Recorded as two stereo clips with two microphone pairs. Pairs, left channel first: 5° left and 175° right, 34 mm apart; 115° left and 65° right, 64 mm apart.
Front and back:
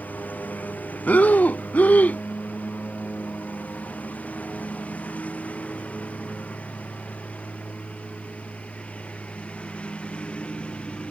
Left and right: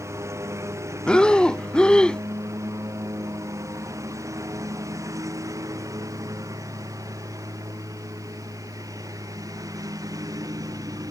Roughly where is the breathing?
Ahead left.